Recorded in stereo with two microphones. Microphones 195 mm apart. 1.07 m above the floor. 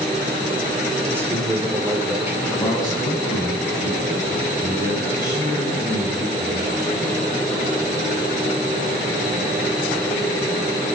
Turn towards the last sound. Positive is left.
turn(degrees=20)  # may be behind; listen again after turning